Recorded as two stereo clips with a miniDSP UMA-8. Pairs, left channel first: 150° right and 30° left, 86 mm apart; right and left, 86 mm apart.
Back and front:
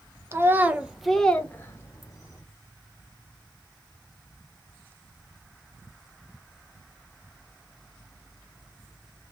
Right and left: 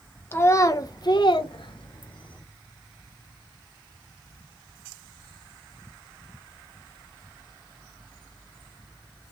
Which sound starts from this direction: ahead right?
A child speaking, at 0.3 s.